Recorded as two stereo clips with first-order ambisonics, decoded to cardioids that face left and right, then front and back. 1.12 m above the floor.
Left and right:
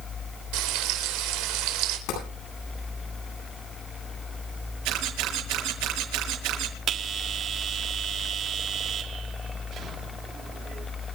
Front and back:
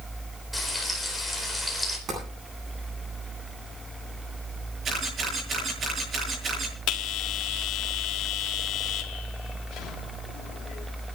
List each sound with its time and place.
0.5 s frying: 90° right, 4 m
2.1 s tapping: 120° left, 9.5 m
4.8 s a camera shutter: 115° right, 8 m
6.9 s a bell: 35° right, 1.8 m